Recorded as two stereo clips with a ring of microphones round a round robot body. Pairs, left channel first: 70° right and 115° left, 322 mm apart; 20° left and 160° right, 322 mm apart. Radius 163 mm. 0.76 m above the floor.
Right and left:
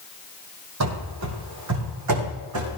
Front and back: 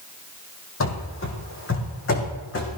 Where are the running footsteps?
70° left, 2.5 m; by 2.7 s 75° left, 3.5 m.